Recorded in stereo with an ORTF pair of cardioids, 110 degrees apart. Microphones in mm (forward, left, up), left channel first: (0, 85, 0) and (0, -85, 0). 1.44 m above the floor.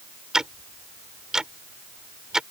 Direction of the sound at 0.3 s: 5° right.